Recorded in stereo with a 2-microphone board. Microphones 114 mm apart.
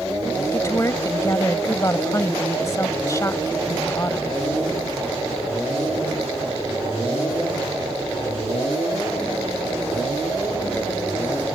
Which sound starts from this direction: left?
A woman speaking, at 0.5 s.